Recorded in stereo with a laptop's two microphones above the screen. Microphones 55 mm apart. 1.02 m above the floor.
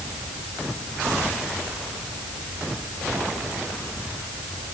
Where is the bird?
I don't hear a bird.